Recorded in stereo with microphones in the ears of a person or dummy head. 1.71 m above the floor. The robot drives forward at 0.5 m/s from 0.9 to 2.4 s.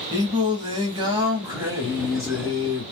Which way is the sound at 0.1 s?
35° right (ahead or behind).